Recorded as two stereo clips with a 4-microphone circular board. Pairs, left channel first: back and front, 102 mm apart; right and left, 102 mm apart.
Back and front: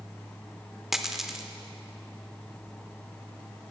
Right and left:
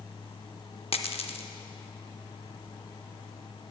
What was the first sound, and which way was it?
A dropped coin, 85° right.